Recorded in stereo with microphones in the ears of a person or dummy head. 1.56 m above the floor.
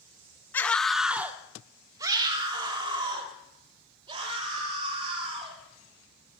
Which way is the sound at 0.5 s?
15° left (ahead or behind).